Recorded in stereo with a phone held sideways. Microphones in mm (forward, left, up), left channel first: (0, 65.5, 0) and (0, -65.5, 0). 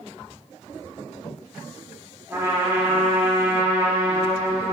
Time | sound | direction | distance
2.3 | a trumpet | 20° right (ahead or behind) | 1.3 m